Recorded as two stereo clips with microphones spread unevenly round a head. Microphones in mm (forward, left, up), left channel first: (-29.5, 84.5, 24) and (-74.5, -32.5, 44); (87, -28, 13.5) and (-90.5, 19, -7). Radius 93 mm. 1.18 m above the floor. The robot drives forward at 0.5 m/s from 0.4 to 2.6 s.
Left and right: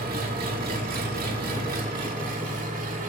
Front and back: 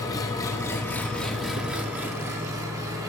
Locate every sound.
0.0 s an engine running: 85° right, 1.6 m; by 3.1 s 120° right, 1.9 m